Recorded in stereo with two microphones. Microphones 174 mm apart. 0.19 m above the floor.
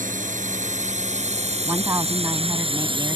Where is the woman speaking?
20° right (ahead or behind).